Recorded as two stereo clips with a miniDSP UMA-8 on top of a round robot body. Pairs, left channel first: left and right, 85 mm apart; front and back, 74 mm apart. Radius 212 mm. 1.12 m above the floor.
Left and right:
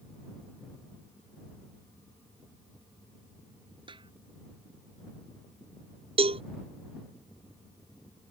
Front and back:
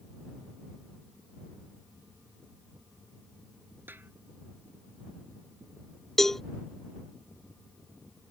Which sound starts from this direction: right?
A cowbell, at 6.2 s.